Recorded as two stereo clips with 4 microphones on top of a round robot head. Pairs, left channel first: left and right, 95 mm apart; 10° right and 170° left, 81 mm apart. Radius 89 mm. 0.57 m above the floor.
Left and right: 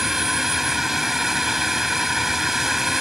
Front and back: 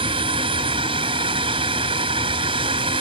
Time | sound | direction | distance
0.0 | a drone | straight behind | ?